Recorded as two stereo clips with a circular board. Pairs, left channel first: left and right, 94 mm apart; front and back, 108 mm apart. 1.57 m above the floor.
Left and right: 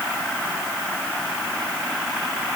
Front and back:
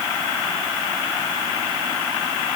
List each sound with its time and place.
Only background noise.